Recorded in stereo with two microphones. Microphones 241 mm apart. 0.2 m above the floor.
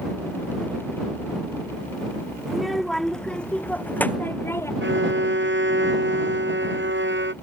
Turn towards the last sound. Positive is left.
turn(degrees=-50)  # may be behind; listen again after turning